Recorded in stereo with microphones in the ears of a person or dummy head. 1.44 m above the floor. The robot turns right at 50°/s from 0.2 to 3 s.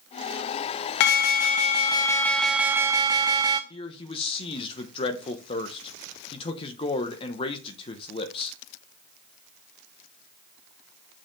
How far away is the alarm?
About 0.8 m.